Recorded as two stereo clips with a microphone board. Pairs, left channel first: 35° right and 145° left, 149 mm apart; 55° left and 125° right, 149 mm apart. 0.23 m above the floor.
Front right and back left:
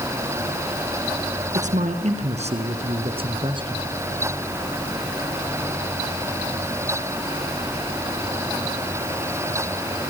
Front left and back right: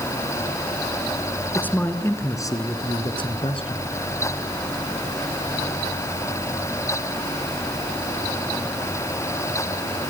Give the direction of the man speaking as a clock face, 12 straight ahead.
8 o'clock.